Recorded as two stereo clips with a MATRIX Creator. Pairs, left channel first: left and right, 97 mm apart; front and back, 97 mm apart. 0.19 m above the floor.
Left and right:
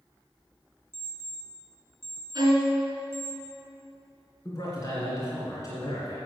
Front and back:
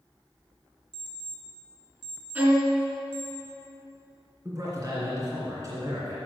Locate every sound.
0.9 s an alarm clock: 155° right, 2 m
2.4 s a violin: 120° right, 2.5 m
4.5 s a man speaking: 130° left, 2.5 m